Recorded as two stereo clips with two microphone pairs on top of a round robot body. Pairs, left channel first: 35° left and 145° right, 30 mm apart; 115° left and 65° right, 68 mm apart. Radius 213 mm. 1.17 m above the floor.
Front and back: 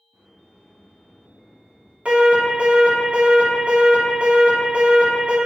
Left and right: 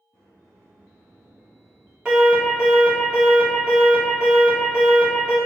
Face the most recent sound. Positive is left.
turn(degrees=-140)